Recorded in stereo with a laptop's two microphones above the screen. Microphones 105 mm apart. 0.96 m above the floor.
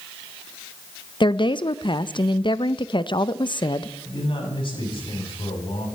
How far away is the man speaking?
About 6.5 m.